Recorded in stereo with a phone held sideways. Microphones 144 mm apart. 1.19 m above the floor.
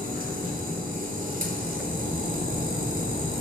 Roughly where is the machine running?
Right.